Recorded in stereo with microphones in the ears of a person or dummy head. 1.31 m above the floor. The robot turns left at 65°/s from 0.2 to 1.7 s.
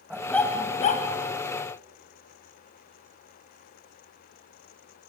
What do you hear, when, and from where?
0.1 s a dog barking: straight behind, 2.5 m; by 1.1 s 125° left, 2.5 m